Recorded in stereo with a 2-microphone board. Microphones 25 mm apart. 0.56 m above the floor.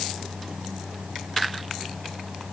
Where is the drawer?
I don't hear a drawer.